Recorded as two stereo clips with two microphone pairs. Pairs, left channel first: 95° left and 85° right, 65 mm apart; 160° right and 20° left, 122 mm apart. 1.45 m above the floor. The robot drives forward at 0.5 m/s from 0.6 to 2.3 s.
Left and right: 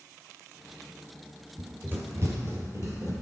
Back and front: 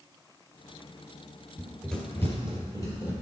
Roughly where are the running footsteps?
Ahead right.